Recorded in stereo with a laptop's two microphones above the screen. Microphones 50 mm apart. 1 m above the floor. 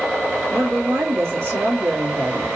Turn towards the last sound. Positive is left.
turn(degrees=-65)  # may be behind; listen again after turning